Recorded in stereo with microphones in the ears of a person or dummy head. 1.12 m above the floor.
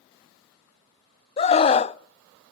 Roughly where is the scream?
Left.